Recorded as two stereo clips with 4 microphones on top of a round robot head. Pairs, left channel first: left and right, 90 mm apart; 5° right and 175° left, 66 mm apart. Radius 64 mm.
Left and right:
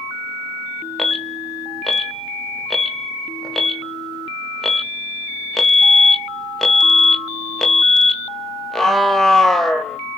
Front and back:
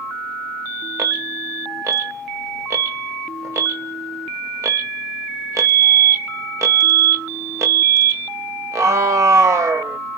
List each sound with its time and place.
1.0 s an alarm: 175° left, 0.9 m